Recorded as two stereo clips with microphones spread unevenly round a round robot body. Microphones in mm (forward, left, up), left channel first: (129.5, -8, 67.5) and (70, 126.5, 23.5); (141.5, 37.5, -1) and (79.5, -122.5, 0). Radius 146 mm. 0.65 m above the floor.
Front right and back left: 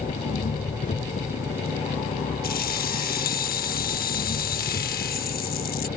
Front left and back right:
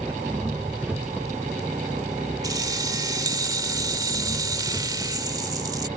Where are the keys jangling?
45° right.